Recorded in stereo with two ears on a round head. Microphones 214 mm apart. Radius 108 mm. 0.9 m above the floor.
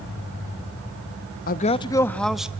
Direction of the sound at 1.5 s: 40° left (ahead or behind).